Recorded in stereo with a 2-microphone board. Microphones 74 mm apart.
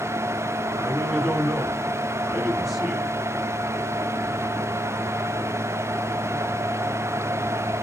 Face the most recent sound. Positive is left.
turn(degrees=-5)  # may be behind; listen again after turning